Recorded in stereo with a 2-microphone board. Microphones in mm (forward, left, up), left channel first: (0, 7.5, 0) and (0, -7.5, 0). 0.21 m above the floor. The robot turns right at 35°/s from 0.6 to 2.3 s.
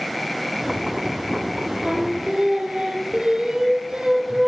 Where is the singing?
40° right (ahead or behind), 1.9 m; by 4.5 s 60° right (ahead or behind), 1.9 m.